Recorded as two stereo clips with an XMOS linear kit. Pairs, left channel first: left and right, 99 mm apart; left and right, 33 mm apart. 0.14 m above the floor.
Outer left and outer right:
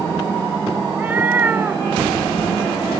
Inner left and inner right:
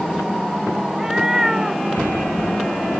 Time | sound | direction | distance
0.9 | a cat meowing | 20° right (ahead or behind) | ?